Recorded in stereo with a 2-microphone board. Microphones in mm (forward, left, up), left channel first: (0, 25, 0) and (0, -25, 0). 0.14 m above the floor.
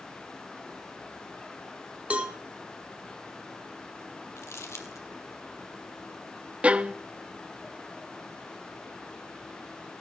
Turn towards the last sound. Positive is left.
turn(degrees=-25)  # may be behind; listen again after turning